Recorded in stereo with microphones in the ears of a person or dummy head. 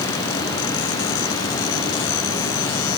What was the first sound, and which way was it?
Only background noise.